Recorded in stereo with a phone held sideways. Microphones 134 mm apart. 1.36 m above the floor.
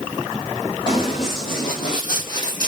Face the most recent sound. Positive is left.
turn(degrees=30)  # may be behind; listen again after turning